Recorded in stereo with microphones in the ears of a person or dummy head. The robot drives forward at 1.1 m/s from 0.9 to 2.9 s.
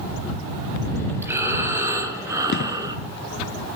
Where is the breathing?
10° right (ahead or behind), 4.5 m; by 3.0 s 20° right (ahead or behind), 2.5 m.